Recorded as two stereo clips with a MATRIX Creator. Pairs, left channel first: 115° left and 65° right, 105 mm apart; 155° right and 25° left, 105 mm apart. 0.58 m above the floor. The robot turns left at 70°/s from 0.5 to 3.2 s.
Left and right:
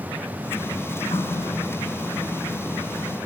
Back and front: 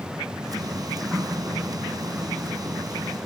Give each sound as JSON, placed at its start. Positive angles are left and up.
{"t": 1.1, "sound": "a running tap", "azimuth_deg": 110, "distance_m": 4.5}